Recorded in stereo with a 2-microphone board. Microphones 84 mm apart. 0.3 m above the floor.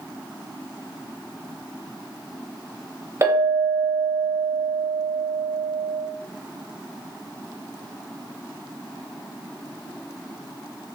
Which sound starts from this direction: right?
A clink, at 3.2 s.